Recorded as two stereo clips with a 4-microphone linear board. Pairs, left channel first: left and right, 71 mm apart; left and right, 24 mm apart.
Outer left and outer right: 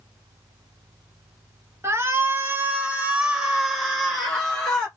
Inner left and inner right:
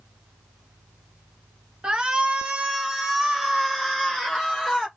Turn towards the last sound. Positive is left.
turn(degrees=10)  # may be behind; listen again after turning